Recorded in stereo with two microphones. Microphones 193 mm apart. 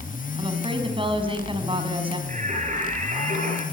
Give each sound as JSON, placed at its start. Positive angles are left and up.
{"t": 0.4, "sound": "a woman speaking", "side_deg": -25, "distance_m": 5.5}
{"t": 2.3, "sound": "singing", "side_deg": -40, "distance_m": 9.5}